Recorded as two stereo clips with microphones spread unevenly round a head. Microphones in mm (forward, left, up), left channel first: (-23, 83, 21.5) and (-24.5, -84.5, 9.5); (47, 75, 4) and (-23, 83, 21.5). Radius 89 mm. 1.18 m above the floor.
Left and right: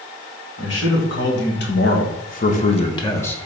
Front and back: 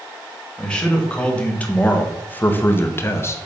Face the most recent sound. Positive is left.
turn(degrees=5)